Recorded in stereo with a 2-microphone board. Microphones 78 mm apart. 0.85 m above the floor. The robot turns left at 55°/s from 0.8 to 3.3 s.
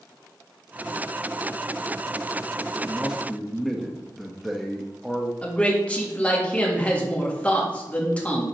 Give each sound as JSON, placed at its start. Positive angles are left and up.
{"t": 2.7, "sound": "a man speaking", "azimuth_deg": -150, "distance_m": 0.8}
{"t": 5.4, "sound": "a man speaking", "side_deg": 20, "distance_m": 1.6}